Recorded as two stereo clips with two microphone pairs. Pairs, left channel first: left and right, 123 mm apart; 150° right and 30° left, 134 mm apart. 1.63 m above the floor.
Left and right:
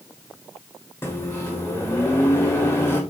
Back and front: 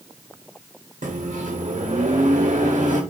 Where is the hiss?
No hiss in this recording.